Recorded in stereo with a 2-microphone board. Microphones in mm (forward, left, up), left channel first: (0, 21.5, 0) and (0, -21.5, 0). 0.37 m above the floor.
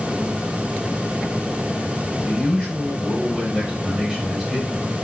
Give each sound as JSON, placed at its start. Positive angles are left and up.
{"t": 2.2, "sound": "a man speaking", "side_deg": -25, "distance_m": 1.6}